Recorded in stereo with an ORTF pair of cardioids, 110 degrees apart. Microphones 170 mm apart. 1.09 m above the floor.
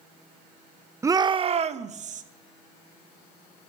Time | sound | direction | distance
1.0 | a shout | 15° right | 0.5 m